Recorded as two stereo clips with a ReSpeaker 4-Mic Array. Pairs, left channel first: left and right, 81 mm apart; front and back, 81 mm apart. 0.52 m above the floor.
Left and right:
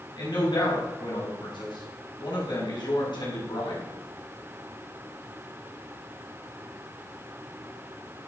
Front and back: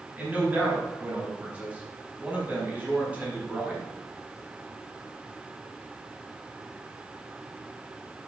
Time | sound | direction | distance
0.2 | a man speaking | 110° left | 4.5 m